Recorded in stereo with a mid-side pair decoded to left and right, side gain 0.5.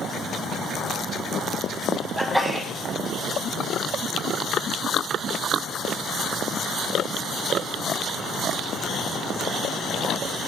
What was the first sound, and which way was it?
A sneeze, 5° right.